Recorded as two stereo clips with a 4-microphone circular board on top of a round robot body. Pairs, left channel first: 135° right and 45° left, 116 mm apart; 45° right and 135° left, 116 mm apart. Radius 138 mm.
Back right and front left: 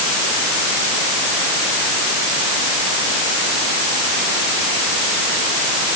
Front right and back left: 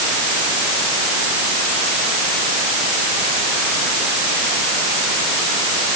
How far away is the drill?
I don't hear a drill.